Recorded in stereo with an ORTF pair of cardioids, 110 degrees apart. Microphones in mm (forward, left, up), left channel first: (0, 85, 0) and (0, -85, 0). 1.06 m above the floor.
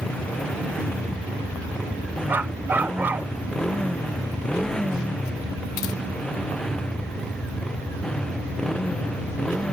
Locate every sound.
0.0 s a motorcycle: 5° left
2.3 s a dog barking: 10° right